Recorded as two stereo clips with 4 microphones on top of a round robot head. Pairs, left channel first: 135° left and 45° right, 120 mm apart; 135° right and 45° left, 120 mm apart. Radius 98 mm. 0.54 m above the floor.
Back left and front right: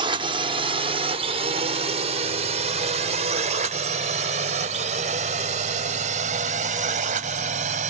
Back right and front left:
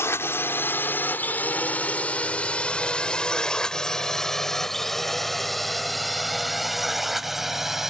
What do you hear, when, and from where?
0.0 s a drone: 70° right; by 7.9 s 40° right